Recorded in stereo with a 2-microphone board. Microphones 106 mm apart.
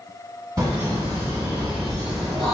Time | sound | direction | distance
0.6 | laughter | 30° right (ahead or behind) | 1.8 m